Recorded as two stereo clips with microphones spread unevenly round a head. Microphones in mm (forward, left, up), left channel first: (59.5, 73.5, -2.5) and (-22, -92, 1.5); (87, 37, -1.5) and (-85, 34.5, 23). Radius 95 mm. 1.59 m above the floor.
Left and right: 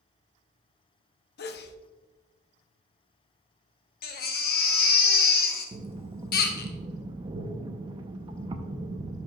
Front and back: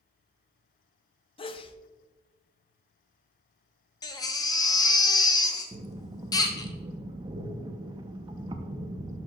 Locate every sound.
1.4 s a sneeze: 60° left, 0.7 m
4.0 s a baby crying: 70° left, 0.9 m
5.7 s breathing: 155° right, 0.6 m